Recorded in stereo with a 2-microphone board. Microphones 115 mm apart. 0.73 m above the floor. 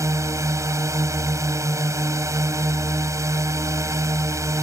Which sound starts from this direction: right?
A drone, at 0.0 s.